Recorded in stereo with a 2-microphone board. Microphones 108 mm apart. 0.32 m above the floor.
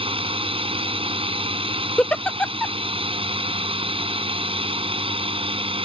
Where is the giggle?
10° left (ahead or behind).